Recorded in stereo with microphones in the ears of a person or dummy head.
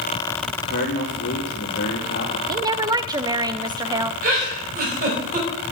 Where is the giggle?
50° right (ahead or behind), 4 m.